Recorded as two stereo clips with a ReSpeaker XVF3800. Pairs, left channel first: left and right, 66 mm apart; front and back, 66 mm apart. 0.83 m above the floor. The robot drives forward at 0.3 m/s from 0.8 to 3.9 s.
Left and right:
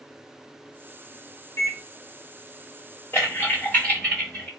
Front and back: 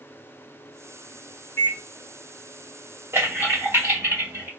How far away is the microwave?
About 1.4 m.